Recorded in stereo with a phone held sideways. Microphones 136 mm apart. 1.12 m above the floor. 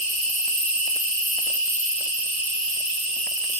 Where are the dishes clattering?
I don't hear dishes clattering.